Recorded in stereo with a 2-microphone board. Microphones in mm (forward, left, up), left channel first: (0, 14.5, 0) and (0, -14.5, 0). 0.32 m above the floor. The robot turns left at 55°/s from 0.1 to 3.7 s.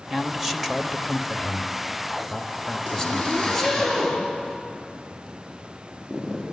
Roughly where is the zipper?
Left.